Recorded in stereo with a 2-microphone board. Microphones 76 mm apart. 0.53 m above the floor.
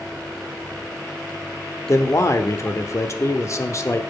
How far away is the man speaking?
About 1.0 m.